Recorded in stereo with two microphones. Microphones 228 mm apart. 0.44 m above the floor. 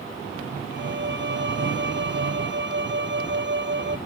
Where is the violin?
50° right (ahead or behind).